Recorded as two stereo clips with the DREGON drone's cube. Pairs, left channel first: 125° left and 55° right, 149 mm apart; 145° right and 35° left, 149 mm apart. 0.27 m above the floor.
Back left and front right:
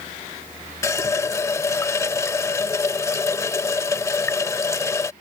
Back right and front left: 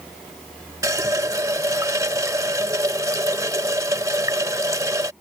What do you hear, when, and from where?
0.8 s a running tap: 80° left